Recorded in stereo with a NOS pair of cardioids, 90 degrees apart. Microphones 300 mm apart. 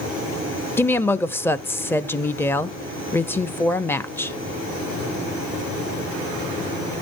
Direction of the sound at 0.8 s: 5° left.